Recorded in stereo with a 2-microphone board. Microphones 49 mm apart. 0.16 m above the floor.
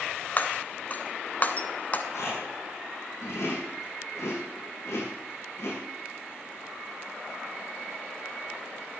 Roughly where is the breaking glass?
Left.